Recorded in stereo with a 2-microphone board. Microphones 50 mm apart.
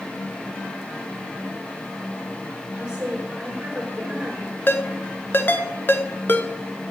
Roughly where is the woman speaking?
Centre.